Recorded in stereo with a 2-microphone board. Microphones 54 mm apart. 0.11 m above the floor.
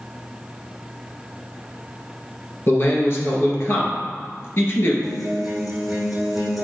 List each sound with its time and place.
2.7 s a man speaking: 50° left (ahead or behind), 1.7 m
5.0 s a guitar: 5° right (ahead or behind), 1.5 m